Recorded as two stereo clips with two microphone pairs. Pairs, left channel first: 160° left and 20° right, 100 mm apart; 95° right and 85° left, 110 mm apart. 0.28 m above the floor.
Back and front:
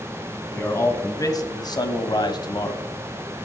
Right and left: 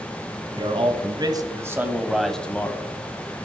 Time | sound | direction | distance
0.5 | a man speaking | 105° left | 2 m